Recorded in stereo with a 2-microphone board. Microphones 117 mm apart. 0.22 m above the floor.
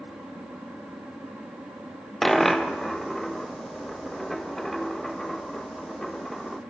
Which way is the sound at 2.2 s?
Centre (ahead or behind).